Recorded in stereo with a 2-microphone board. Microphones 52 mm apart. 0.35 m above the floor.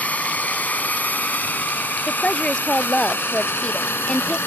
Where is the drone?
30° left (ahead or behind); by 4.5 s 45° left (ahead or behind).